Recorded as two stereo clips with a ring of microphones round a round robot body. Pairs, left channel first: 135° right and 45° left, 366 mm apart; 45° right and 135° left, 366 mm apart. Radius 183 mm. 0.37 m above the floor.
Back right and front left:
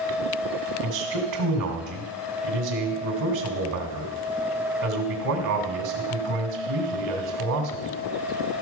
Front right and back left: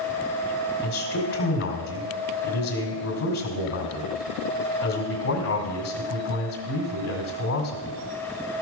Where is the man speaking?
10° left, 1.8 m.